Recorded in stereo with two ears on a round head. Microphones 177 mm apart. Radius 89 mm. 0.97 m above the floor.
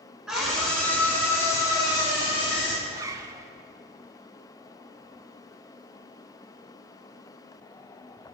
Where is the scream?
Centre (ahead or behind), 4.5 m; by 2.7 s 30° left (ahead or behind), 6.5 m.